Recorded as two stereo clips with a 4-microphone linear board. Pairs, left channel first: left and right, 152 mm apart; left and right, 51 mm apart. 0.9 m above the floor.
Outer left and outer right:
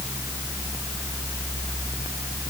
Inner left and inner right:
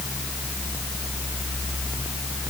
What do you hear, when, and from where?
Only background noise.